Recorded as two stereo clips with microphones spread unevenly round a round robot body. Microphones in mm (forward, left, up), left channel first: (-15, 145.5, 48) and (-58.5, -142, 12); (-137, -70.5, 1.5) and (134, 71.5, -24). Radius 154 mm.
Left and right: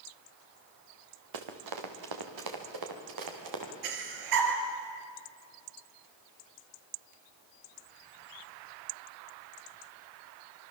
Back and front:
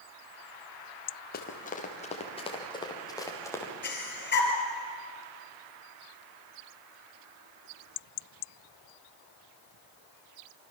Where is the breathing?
95° right, 3.5 m.